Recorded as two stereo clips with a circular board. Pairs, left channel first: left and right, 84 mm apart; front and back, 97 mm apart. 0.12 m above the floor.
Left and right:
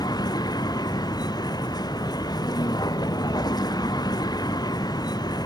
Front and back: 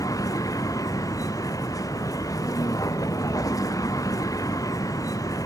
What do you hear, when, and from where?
0.0 s a vehicle: 55° left